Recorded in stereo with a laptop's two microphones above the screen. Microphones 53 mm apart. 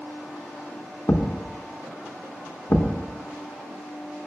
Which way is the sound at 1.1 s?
55° left (ahead or behind).